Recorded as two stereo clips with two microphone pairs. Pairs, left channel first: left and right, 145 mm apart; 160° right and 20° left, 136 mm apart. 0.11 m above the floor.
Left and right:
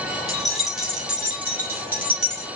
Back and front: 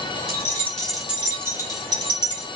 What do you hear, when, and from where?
0.3 s keys jangling: 175° left, 1.1 m; by 2.5 s 15° right, 1.7 m